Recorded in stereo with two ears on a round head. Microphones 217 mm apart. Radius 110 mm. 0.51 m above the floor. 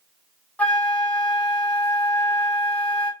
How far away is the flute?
About 0.7 m.